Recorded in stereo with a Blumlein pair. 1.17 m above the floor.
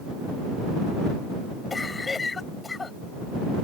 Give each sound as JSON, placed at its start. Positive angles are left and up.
{"t": 1.7, "sound": "a cough", "azimuth_deg": 15}